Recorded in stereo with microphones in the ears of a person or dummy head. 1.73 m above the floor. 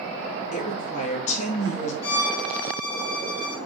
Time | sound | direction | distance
0.5 | a woman speaking | 45° left (ahead or behind) | 4.5 m
2.0 | a violin | 30° left (ahead or behind) | 2.5 m